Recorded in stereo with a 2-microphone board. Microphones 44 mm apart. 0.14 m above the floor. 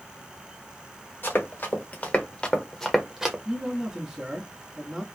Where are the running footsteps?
50° left (ahead or behind), 1.9 m; by 3.4 s 15° right (ahead or behind), 1.0 m.